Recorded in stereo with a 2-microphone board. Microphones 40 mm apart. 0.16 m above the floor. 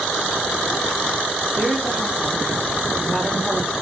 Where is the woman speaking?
10° right (ahead or behind), 7 m.